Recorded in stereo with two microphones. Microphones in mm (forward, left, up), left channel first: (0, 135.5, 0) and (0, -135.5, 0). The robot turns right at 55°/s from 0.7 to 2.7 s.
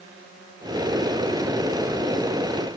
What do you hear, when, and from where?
Only background noise.